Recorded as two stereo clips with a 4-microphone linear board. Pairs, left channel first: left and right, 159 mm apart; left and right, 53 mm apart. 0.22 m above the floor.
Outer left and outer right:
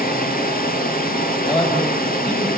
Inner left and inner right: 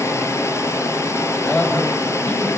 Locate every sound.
0.0 s running water: 65° left (ahead or behind), 4 m
1.4 s a man speaking: 30° left (ahead or behind), 6.5 m